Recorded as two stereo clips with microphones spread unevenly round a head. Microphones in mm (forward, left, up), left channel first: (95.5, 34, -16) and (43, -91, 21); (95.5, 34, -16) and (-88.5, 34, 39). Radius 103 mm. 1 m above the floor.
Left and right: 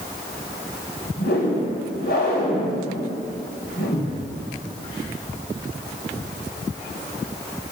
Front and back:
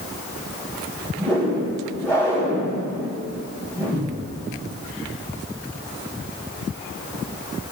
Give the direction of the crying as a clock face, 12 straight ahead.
I don't hear crying.